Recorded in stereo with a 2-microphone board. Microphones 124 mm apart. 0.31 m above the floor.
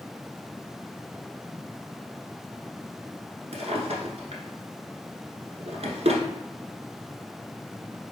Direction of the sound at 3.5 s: 60° right (ahead or behind).